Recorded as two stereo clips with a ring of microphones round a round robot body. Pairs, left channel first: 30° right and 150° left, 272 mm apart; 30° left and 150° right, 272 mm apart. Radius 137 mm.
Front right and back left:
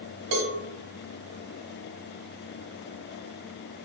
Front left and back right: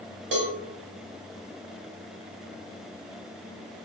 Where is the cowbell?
160° left, 1.1 m.